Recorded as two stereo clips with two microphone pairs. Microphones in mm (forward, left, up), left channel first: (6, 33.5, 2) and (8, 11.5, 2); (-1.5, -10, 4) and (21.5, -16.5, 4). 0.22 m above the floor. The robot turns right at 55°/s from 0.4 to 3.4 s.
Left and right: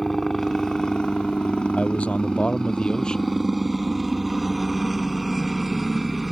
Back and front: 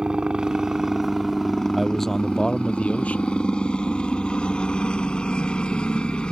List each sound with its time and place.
0.0 s a helicopter: 30° left; by 6.3 s 165° right
1.7 s a man speaking: 70° left; by 3.3 s 160° left